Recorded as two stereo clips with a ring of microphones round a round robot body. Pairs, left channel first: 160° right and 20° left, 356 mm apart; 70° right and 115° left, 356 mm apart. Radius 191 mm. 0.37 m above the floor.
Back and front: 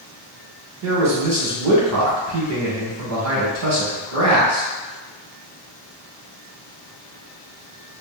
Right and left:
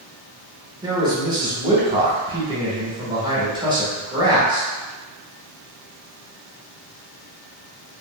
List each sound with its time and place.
0.8 s a man speaking: 40° left, 1.1 m